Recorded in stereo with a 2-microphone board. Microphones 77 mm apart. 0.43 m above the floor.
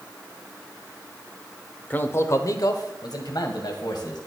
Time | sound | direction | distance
1.9 | a man speaking | 20° left (ahead or behind) | 0.9 m